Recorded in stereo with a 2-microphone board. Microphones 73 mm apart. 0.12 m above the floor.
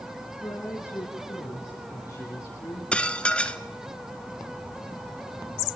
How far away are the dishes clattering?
About 0.9 m.